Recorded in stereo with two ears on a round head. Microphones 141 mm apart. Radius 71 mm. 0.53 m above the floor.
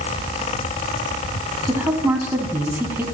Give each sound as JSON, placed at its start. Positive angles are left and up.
{"t": 1.6, "sound": "a woman speaking", "side_deg": -15, "distance_m": 4.0}